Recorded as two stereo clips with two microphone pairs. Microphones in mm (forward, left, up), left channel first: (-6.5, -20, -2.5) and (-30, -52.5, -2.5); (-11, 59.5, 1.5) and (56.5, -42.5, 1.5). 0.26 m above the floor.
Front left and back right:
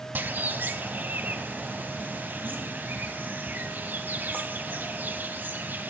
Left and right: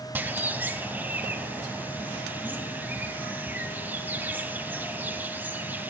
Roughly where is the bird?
Behind right.